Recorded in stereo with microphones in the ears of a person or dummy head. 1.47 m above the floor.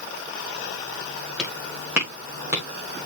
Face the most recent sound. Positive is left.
turn(degrees=-15)  # may be behind; listen again after turning